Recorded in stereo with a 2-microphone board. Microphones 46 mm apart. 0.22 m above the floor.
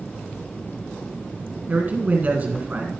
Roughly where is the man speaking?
Right.